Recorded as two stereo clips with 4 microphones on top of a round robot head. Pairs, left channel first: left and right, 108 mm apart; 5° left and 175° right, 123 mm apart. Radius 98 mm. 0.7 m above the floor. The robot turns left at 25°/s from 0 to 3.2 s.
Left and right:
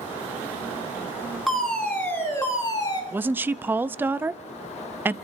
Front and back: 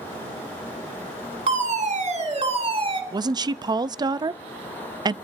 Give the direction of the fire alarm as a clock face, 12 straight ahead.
6 o'clock.